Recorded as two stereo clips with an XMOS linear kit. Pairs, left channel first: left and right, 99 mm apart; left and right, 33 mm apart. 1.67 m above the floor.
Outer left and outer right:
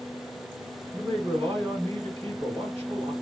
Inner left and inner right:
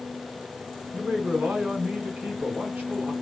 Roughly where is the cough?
No cough in this recording.